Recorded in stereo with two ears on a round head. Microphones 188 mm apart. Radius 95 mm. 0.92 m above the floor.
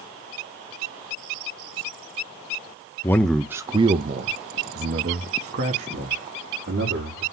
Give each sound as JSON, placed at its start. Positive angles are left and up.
{"t": 3.0, "sound": "a man speaking", "side_deg": 15, "distance_m": 0.6}